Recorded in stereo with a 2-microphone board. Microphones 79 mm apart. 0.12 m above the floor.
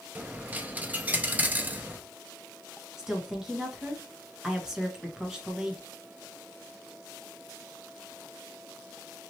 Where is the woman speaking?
10° right (ahead or behind), 1.1 m.